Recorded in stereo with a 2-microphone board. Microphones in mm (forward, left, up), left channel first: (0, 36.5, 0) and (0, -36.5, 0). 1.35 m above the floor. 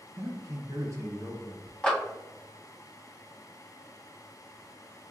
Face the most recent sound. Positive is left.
turn(degrees=15)  # may be behind; listen again after turning